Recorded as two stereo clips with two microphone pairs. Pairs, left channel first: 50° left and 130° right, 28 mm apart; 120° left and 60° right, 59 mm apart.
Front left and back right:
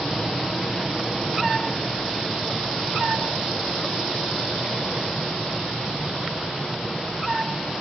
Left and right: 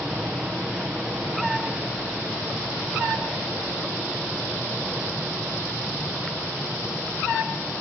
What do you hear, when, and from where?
0.0 s an aircraft: 5° right